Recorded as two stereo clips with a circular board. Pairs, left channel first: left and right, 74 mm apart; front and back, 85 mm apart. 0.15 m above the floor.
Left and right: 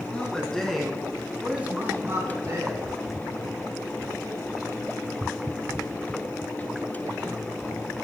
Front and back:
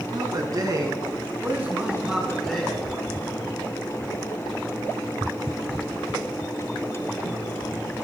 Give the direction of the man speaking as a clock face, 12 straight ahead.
7 o'clock.